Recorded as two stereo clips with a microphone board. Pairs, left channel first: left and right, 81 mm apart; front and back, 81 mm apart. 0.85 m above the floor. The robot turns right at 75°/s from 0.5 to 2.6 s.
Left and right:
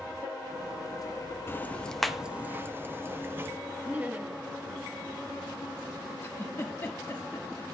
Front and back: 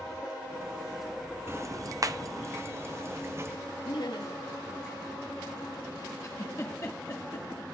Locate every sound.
1.5 s ticking: 135° left, 0.7 m; by 3.6 s 140° right, 0.7 m
3.9 s laughter: 20° right, 1.0 m
6.2 s a giggle: 35° left, 1.4 m